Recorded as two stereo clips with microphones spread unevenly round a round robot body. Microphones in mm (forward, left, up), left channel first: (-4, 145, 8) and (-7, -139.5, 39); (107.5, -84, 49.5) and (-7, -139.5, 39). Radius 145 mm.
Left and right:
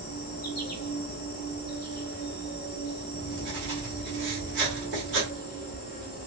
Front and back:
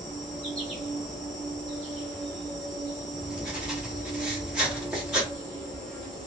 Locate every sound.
0.0 s an insect: 120° left, 1.0 m
3.1 s writing: 80° right, 1.7 m